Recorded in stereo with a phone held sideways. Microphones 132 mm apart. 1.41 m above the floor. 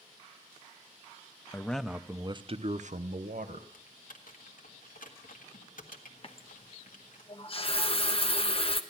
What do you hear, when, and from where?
1.5 s a man speaking: 15° left (ahead or behind), 0.7 m; by 3.7 s 80° right, 1.2 m
3.7 s typing on a keyboard: 80° left, 1.6 m
6.2 s a running tap: 40° left (ahead or behind), 0.9 m